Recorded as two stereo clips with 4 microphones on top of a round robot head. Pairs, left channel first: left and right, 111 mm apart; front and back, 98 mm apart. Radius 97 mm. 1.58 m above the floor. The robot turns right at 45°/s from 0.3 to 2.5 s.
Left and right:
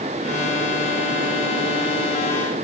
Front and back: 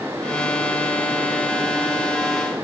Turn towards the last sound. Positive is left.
No sound to turn to.